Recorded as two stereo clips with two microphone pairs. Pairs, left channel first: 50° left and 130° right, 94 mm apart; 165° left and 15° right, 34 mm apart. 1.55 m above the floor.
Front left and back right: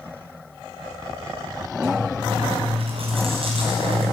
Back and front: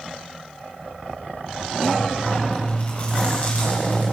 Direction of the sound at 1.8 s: 150° right.